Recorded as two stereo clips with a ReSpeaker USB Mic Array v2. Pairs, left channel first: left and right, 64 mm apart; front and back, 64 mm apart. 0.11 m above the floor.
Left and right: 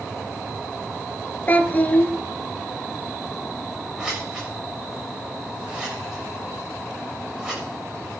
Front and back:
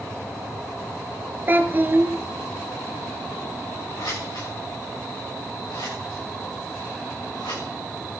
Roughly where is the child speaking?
Behind left.